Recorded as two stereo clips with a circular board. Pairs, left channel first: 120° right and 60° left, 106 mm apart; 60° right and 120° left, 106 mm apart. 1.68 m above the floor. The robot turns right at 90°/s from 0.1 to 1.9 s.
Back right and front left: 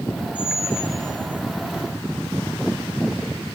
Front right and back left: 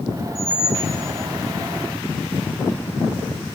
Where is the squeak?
160° right, 3.5 m; by 1.0 s 95° right, 3.5 m.